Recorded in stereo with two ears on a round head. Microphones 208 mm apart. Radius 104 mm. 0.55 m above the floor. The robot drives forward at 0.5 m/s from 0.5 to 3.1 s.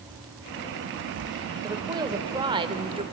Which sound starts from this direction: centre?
A woman speaking, at 1.6 s.